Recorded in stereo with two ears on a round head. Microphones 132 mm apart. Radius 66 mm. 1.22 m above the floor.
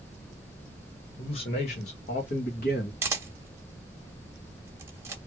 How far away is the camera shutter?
About 0.8 m.